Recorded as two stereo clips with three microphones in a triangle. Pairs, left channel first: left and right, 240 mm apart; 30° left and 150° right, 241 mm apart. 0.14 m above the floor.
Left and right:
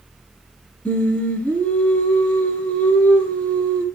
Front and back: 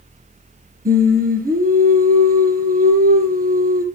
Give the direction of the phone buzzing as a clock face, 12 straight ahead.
I don't hear a phone buzzing.